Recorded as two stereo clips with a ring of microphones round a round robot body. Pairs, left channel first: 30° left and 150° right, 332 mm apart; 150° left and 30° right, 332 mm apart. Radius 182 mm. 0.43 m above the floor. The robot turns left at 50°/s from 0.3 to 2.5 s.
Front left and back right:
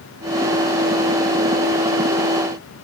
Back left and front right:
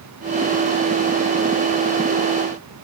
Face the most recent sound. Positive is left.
No sound to turn to.